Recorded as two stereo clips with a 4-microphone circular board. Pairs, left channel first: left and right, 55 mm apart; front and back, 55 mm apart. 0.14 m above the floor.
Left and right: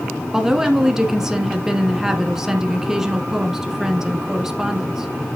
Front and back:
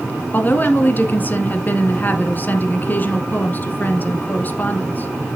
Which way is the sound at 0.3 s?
15° right.